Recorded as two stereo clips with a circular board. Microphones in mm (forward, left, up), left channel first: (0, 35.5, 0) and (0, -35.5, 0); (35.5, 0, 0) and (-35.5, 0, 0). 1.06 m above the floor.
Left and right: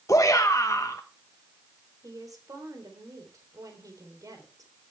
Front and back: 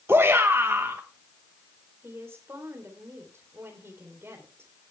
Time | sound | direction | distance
0.1 | a shout | 130° left | 1.0 m
2.0 | a woman speaking | 125° right | 3.5 m